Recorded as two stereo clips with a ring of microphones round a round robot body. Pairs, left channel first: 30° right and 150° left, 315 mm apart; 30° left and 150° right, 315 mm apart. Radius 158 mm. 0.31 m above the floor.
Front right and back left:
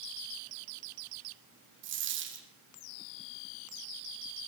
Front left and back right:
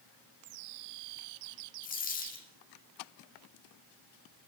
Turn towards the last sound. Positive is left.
turn(degrees=95)